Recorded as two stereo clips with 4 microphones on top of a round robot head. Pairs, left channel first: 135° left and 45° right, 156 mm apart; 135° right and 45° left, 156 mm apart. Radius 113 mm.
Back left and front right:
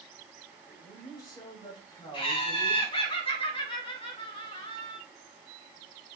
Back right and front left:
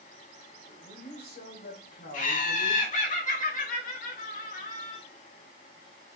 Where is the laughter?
170° right, 2.5 m.